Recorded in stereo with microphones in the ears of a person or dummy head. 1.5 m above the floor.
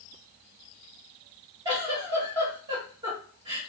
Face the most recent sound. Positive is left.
turn(degrees=-25)  # may be behind; listen again after turning